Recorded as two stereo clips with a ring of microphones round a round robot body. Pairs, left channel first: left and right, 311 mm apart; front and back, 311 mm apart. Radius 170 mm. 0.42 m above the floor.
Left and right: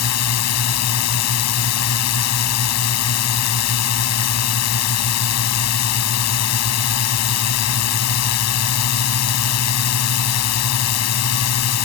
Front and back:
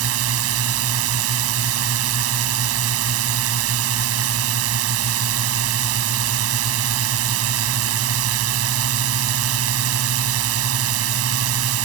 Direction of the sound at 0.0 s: 130° left.